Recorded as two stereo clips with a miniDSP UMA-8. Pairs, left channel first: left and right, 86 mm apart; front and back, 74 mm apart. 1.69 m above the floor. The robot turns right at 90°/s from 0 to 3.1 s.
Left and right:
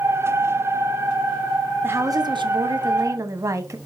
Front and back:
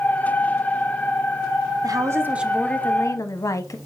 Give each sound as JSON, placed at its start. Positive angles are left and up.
{"t": 1.8, "sound": "a woman speaking", "azimuth_deg": -155, "distance_m": 0.9}